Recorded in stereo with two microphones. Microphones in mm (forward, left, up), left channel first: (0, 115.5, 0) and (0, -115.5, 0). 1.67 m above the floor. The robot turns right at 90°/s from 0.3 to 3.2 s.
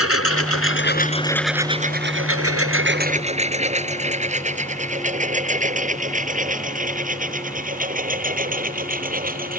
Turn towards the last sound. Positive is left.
turn(degrees=-40)  # may be behind; listen again after turning